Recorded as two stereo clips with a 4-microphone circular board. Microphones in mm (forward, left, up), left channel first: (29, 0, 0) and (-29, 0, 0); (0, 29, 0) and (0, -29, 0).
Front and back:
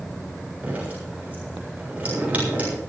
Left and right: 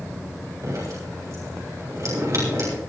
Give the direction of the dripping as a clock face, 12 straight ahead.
4 o'clock.